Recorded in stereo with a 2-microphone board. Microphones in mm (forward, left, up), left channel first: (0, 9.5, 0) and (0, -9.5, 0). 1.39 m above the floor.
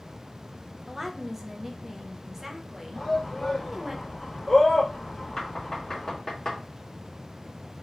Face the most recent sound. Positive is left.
turn(degrees=30)  # may be behind; listen again after turning